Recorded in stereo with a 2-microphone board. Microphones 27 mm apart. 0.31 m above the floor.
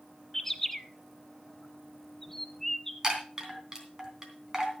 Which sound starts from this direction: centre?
A bird, at 0.3 s.